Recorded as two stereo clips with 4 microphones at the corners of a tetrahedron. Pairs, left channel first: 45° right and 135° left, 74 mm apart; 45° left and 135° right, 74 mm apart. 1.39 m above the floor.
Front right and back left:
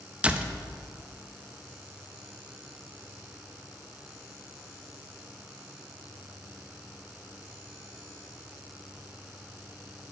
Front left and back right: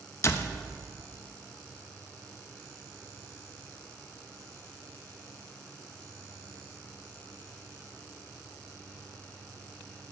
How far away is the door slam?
About 0.7 m.